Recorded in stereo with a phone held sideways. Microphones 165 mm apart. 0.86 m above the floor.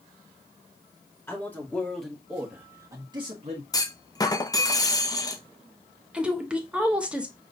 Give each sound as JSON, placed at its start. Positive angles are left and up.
{"t": 1.3, "sound": "a man speaking", "side_deg": 15, "distance_m": 1.7}
{"t": 3.7, "sound": "a clunk", "side_deg": 20, "distance_m": 0.6}
{"t": 6.1, "sound": "a woman speaking", "side_deg": -5, "distance_m": 1.0}